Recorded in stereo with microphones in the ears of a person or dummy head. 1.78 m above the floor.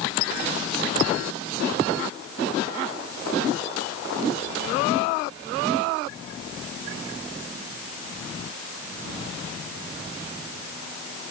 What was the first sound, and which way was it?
Only background noise.